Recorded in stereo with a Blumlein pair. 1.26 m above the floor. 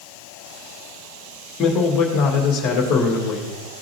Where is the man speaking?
30° left, 1.9 m.